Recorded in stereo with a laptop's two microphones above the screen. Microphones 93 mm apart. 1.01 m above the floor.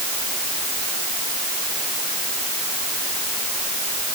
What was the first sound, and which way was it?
Only background noise.